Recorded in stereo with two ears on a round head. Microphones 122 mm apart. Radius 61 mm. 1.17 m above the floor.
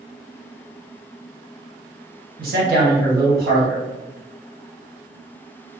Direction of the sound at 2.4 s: 75° right (ahead or behind).